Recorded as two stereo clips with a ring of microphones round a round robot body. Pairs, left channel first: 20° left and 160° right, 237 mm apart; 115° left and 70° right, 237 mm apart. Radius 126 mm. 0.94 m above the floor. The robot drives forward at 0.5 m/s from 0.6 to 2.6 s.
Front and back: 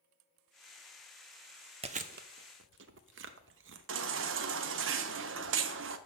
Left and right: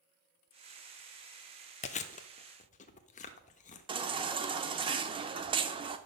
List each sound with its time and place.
1.8 s chewing: 155° left, 0.5 m; by 4.4 s 170° left, 0.8 m
3.9 s a baby crying: 135° right, 0.7 m